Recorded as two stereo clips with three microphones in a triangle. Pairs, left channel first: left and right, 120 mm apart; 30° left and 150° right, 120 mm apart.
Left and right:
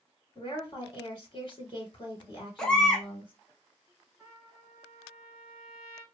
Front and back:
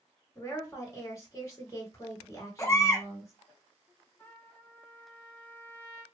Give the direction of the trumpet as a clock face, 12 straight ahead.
1 o'clock.